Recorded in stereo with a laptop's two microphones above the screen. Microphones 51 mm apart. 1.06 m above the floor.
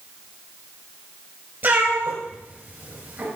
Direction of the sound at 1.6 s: 45° right (ahead or behind).